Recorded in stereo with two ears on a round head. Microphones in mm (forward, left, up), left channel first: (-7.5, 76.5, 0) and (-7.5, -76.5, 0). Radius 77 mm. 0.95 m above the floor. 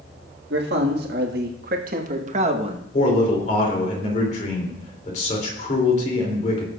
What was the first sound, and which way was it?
A man speaking, 70° right (ahead or behind).